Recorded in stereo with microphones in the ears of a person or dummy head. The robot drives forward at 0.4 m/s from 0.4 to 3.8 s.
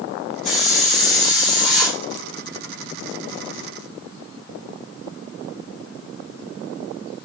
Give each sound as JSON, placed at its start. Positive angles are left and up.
{"t": 0.5, "sound": "a hiss", "side_deg": 35, "distance_m": 1.2}